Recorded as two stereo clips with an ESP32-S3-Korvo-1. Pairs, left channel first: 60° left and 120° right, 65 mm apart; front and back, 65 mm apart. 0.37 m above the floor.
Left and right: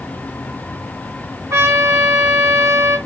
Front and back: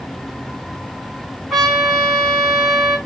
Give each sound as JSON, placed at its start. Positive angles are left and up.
{"t": 1.5, "sound": "a trumpet", "azimuth_deg": -90, "distance_m": 3.5}